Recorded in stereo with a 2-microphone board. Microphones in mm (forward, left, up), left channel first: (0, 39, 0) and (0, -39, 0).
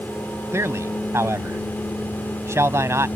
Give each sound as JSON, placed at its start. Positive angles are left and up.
{"t": 0.5, "sound": "a man speaking", "side_deg": -35}